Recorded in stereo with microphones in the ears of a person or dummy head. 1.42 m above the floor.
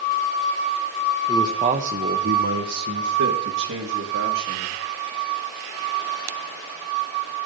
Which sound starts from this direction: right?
A man speaking, at 1.3 s.